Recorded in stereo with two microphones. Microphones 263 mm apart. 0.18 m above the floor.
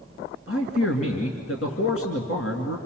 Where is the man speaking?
55° left (ahead or behind), 2.5 m.